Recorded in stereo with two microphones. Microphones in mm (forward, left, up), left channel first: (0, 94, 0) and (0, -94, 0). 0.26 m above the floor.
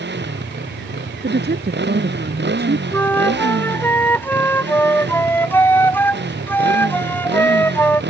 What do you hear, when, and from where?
0.0 s a motorcycle: 70° right (ahead or behind)
1.2 s a woman speaking: 65° right (ahead or behind)
2.9 s a flute: 10° left (ahead or behind)